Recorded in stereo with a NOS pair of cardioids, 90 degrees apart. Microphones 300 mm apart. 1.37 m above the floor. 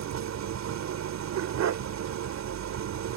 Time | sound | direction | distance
0.0 | an engine running | 60° right | ?
1.4 | a dog barking | 65° right | ?